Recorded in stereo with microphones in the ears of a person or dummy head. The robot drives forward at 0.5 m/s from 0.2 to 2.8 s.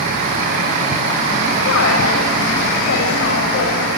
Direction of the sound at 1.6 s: 65° left (ahead or behind).